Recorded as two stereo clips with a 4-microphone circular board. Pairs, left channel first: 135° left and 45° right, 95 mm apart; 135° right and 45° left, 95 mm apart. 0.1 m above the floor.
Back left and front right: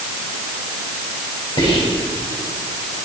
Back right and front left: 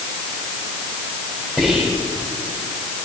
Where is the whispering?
130° left, 5.5 m.